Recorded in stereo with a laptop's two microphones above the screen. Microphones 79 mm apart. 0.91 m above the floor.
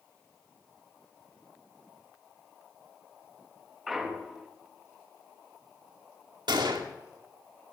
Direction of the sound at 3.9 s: 5° right (ahead or behind).